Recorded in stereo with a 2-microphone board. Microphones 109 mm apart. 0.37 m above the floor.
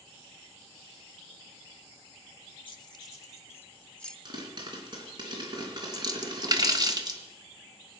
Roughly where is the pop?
Right.